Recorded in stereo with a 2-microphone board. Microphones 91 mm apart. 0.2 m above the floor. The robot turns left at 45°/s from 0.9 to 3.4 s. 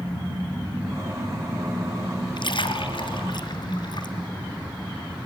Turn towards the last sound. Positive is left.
turn(degrees=55)  # may be behind; listen again after turning